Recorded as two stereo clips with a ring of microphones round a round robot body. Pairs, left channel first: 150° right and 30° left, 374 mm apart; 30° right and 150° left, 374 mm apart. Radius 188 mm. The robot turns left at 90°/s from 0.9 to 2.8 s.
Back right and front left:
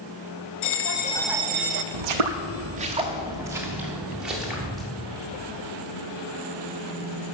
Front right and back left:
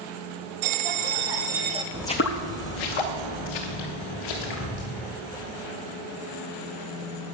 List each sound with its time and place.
0.6 s a bell: 155° left, 0.7 m; by 1.8 s 70° left, 0.7 m
1.9 s footsteps: 70° left, 0.9 m; by 4.8 s 60° right, 4 m